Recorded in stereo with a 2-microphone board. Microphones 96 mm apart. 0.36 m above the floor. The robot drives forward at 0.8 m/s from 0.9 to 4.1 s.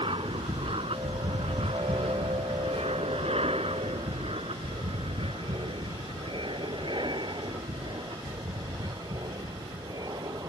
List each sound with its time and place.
0.0 s an aircraft: 60° right (ahead or behind); by 10.5 s 40° right (ahead or behind)